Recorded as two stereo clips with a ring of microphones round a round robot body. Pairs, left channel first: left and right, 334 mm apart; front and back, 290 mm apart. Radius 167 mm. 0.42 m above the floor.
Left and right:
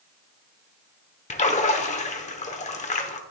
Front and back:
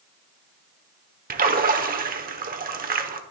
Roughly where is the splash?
Behind left.